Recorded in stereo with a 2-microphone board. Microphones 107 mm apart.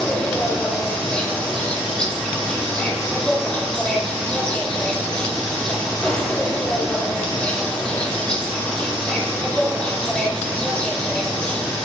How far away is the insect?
About 1.9 m.